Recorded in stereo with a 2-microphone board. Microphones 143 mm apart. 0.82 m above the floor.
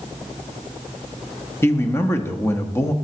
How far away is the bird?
No bird in this recording.